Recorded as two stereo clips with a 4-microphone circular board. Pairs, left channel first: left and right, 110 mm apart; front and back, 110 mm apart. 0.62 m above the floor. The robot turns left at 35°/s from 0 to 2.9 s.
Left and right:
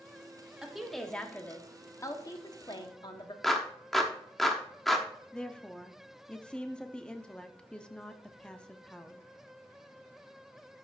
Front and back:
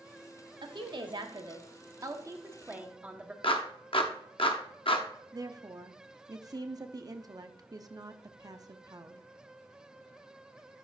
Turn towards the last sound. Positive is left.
turn(degrees=165)